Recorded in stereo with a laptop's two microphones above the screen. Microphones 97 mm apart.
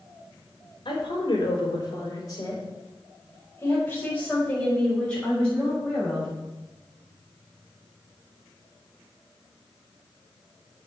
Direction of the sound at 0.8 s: 60° left (ahead or behind).